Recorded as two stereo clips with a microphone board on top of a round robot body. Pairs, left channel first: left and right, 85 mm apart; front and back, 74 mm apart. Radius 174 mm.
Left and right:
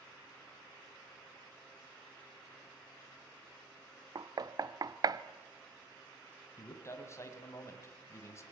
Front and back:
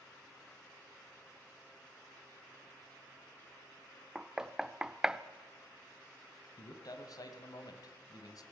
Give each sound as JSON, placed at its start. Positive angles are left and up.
{"t": 4.2, "sound": "knocking", "azimuth_deg": -100, "distance_m": 1.1}
{"t": 6.6, "sound": "a man speaking", "azimuth_deg": 30, "distance_m": 3.0}